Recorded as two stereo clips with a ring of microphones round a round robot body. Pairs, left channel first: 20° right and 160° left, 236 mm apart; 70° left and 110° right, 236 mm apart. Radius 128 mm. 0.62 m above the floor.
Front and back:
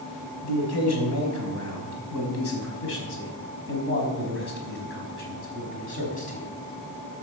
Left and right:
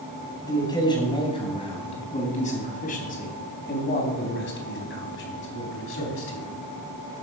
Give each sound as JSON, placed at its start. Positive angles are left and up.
{"t": 0.4, "sound": "a man speaking", "azimuth_deg": -10, "distance_m": 4.0}